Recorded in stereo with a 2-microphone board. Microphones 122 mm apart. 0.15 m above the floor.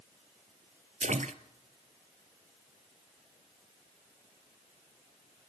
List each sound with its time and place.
1.0 s a splash: 75° right (ahead or behind), 0.8 m